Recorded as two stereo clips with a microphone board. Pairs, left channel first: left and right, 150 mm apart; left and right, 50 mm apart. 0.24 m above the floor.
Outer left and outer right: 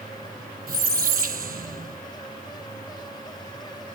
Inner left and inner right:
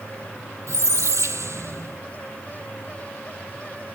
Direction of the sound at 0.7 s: 75° right (ahead or behind).